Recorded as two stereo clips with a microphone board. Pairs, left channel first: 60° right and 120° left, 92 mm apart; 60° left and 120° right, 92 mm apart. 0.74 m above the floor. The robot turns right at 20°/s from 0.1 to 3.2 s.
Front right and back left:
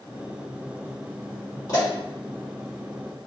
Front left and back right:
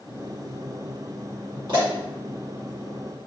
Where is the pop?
105° right, 1.6 m; by 1.9 s 100° right, 1.6 m.